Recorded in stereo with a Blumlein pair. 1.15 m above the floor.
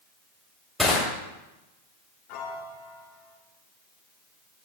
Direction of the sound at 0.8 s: Straight ahead.